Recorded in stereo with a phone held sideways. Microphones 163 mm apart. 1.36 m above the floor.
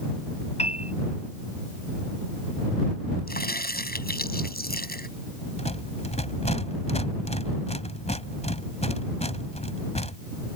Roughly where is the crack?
Left.